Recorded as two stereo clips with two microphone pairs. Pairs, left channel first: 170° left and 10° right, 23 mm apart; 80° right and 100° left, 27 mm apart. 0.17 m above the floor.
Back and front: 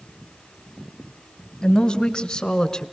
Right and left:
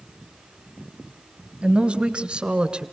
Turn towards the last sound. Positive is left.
turn(degrees=120)